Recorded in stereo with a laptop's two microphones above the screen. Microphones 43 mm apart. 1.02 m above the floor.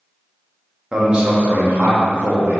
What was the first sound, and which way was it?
A man speaking, 20° right (ahead or behind).